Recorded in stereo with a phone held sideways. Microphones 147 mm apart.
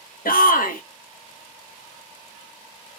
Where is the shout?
75° left (ahead or behind), 1.3 m.